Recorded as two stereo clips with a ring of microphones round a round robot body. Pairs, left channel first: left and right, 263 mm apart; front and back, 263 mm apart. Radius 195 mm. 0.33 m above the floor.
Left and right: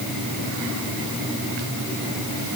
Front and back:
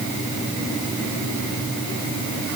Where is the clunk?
I don't hear a clunk.